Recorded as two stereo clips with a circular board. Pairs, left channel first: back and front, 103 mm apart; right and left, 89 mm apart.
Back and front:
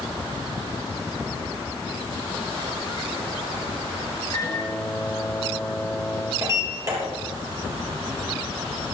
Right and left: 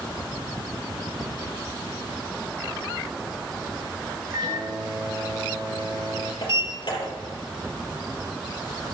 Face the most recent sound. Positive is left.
turn(degrees=-60)